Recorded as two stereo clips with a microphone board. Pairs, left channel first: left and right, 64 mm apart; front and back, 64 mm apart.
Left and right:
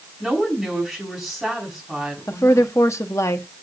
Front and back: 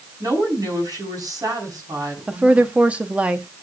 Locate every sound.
0.2 s a woman speaking: 175° right, 5 m
2.3 s a woman speaking: 115° left, 1.0 m